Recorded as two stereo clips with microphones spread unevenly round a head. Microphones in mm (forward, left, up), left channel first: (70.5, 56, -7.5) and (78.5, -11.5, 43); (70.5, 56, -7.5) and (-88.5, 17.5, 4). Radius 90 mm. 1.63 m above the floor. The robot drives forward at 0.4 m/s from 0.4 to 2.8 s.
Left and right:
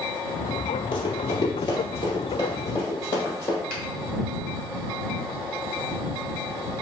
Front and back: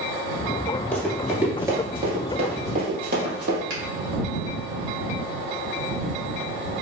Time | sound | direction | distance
0.9 | running footsteps | 90° left | 1.9 m
3.7 | a finger snap | 145° right | 1.9 m